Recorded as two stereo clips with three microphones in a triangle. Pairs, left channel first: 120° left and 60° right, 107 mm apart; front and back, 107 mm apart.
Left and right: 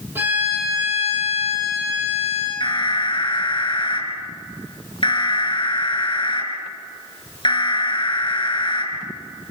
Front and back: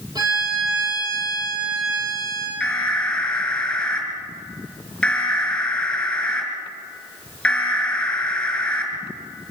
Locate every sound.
0.1 s a violin: 130° right, 8.5 m
2.6 s an alarm: 85° left, 5.5 m